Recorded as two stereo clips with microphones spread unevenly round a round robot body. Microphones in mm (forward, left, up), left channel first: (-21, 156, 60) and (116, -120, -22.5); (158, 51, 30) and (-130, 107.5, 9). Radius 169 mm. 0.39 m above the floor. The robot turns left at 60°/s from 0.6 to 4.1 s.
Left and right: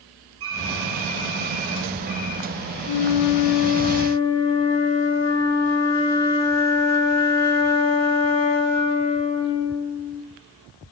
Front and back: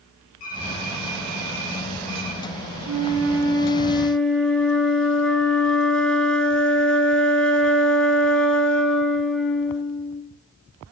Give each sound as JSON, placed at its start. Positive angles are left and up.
{"t": 0.4, "sound": "typing on a keyboard", "azimuth_deg": -55, "distance_m": 6.5}
{"t": 2.9, "sound": "a flute", "azimuth_deg": 150, "distance_m": 2.5}